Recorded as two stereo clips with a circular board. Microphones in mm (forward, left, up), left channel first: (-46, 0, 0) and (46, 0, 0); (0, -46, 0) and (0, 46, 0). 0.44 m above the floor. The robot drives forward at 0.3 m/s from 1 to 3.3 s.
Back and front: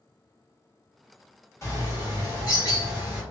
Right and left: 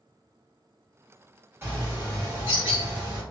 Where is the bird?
140° left, 1.3 m; by 3.2 s 155° left, 1.6 m.